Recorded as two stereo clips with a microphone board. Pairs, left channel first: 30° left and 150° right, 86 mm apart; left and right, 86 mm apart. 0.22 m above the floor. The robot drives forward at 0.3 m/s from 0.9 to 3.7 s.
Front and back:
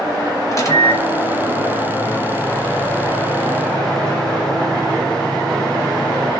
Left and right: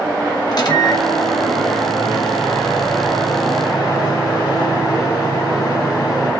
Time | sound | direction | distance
0.5 | a microwave | 75° left | 1.6 m